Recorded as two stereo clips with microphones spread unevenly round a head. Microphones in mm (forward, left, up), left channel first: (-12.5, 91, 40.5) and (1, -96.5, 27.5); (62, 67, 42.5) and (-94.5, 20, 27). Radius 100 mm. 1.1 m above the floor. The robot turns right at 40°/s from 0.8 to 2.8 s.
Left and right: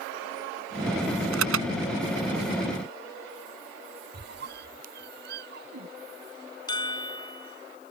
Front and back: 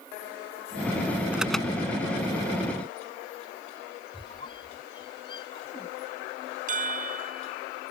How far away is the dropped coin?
No dropped coin in this recording.